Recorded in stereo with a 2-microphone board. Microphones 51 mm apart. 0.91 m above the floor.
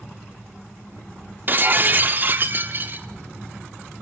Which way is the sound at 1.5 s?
40° right (ahead or behind).